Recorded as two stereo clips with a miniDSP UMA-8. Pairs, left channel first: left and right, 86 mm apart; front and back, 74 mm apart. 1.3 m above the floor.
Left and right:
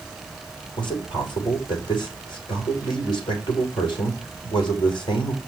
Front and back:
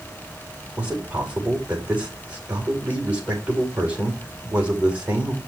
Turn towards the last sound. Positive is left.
turn(degrees=110)